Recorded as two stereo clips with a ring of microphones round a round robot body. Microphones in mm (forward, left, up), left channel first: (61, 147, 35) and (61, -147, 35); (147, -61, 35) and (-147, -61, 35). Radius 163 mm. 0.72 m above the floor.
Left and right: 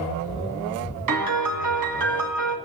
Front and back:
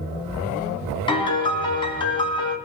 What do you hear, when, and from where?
1.1 s a piano: 75° right, 1.8 m